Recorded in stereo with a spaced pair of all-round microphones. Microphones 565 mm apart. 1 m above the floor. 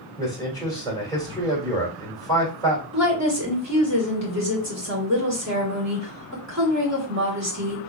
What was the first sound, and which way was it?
A man speaking, 5° left (ahead or behind).